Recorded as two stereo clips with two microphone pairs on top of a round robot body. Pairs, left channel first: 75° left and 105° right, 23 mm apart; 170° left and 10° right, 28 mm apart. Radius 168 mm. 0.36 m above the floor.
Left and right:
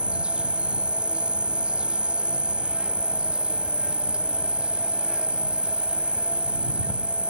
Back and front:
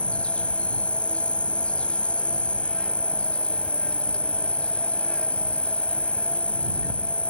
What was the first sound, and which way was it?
An insect, 140° right.